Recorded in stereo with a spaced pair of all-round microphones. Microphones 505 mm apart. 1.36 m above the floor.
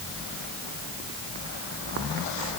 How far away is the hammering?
No hammering in this recording.